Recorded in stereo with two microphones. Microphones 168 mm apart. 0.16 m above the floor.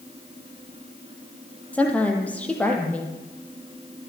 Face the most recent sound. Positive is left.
turn(degrees=10)  # may be behind; listen again after turning